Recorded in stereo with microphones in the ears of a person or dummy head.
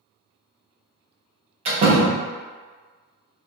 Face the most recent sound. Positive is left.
turn(degrees=-35)  # may be behind; listen again after turning